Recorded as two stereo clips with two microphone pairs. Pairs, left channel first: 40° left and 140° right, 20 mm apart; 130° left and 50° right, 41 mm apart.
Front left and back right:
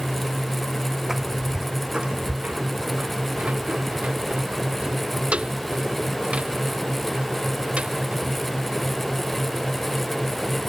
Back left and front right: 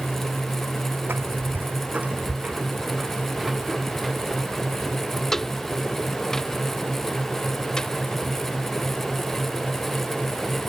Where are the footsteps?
65° right; by 10.1 s 160° right.